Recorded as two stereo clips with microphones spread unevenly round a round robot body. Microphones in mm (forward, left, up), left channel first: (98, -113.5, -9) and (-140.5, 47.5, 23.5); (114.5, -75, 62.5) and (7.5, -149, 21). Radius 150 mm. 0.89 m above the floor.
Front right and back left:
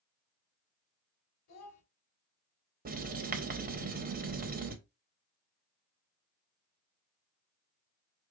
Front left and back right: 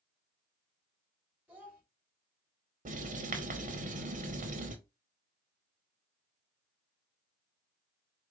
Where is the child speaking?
70° right, 2.5 m.